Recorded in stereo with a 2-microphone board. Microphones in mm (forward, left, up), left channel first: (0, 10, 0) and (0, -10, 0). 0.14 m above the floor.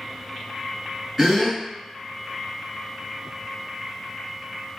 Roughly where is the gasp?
Centre.